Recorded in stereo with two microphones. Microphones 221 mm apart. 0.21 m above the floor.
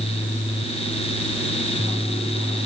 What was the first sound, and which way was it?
Only background noise.